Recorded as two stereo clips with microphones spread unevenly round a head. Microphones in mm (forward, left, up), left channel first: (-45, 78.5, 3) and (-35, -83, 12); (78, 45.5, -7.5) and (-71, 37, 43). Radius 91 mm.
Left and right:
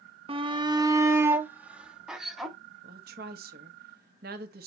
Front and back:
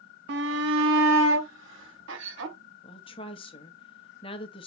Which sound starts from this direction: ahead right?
A woman speaking, at 2.8 s.